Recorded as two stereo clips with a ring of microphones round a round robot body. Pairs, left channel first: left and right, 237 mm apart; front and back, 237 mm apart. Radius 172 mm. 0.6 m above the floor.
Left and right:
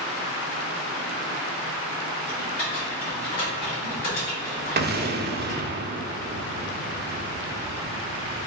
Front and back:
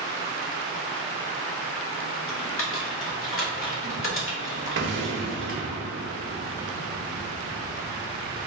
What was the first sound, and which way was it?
Typing on a keyboard, 35° left.